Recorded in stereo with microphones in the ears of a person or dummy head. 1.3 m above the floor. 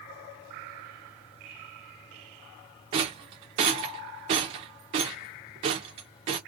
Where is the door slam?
No door slam in this recording.